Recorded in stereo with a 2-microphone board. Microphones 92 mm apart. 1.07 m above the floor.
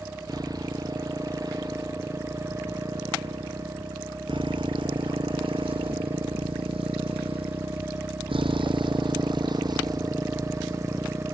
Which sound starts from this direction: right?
A motorcycle, at 0.0 s.